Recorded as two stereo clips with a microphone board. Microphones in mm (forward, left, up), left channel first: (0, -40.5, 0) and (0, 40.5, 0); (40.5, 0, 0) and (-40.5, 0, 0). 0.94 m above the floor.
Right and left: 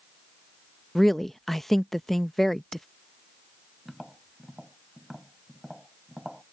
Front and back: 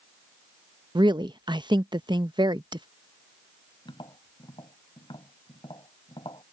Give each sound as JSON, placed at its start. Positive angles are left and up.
{"t": 0.9, "sound": "a woman speaking", "azimuth_deg": -175}
{"t": 3.9, "sound": "tapping", "azimuth_deg": 0}